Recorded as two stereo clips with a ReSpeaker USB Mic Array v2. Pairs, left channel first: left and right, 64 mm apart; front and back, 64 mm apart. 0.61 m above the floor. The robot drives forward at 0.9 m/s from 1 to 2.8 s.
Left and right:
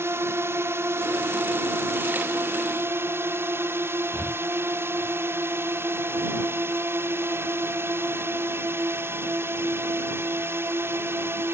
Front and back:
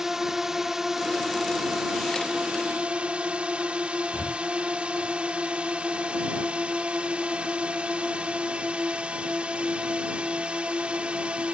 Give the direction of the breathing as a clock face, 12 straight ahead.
11 o'clock.